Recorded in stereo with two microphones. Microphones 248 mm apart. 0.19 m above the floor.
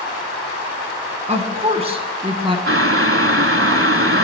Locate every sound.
1.3 s a woman speaking: 25° right (ahead or behind), 2 m; by 2.6 s 20° right (ahead or behind), 1.8 m
2.7 s boiling: 55° right (ahead or behind), 0.8 m